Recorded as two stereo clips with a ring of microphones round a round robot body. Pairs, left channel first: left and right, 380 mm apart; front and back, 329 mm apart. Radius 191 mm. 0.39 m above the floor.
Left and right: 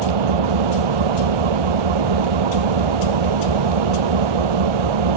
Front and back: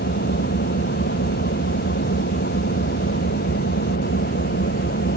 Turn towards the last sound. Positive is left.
turn(degrees=-70)